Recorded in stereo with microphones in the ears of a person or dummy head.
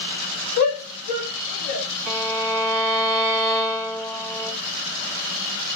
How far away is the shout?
About 0.8 m.